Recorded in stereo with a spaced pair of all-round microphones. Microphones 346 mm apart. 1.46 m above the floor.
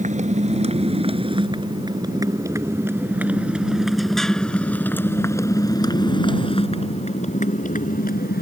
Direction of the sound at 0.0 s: 20° right (ahead or behind).